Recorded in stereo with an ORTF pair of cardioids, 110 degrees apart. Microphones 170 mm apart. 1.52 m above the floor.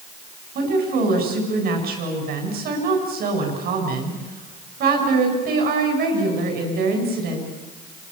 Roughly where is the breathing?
No breathing in this recording.